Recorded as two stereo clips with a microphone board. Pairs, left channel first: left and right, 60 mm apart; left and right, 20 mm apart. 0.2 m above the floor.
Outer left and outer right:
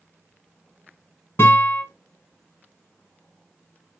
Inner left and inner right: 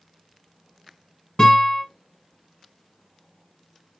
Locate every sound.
1.4 s a guitar: 40° left (ahead or behind), 1.3 m